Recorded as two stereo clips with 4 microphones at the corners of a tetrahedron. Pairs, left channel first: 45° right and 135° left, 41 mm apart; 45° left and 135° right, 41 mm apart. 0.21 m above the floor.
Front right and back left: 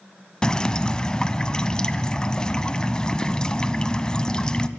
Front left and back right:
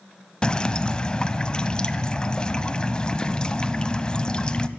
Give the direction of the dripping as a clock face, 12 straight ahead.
12 o'clock.